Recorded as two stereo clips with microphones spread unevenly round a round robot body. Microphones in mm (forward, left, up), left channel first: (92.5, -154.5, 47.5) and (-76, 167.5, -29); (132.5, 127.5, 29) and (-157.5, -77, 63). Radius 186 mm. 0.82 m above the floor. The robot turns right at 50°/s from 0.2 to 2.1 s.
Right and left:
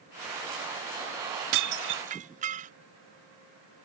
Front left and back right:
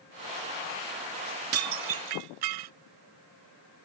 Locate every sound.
1.5 s dishes clattering: 160° left; by 2.7 s 170° right